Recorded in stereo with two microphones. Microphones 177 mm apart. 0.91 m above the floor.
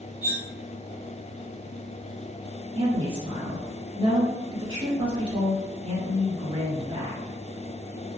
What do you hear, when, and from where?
0.2 s cutlery clinking: 35° right (ahead or behind), 1.0 m
2.8 s a woman speaking: 30° right (ahead or behind), 1.3 m